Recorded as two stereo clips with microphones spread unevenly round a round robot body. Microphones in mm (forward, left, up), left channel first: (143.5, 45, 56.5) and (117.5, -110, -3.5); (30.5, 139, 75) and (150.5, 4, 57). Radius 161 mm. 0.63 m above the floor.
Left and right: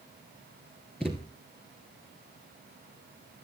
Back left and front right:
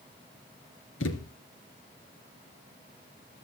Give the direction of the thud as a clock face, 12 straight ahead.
7 o'clock.